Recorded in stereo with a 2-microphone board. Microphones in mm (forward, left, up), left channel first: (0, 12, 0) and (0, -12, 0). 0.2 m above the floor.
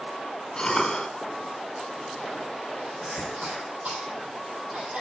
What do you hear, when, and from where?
0.6 s a cough: 30° left (ahead or behind), 1.8 m
3.0 s a cough: 75° right (ahead or behind), 6 m